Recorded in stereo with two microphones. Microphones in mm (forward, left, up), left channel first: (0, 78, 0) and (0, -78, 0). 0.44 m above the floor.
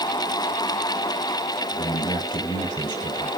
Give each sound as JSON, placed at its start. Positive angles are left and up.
{"t": 1.7, "sound": "a man speaking", "side_deg": 30, "distance_m": 4.5}